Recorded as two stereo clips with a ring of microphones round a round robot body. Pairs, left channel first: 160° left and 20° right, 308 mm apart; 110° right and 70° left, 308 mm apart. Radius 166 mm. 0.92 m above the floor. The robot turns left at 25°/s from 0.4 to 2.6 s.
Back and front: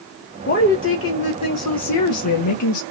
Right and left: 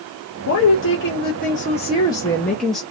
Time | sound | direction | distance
0.5 | a woman speaking | 150° right | 1.5 m